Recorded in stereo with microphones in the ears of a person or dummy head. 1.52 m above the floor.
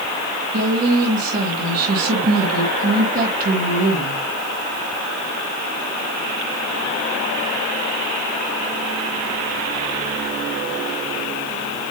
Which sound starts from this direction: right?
A woman speaking, at 0.5 s.